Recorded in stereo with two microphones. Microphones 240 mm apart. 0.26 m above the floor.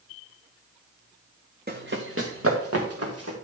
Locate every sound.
1.7 s running footsteps: 40° right (ahead or behind), 1.4 m; by 3.3 s 80° right, 3.5 m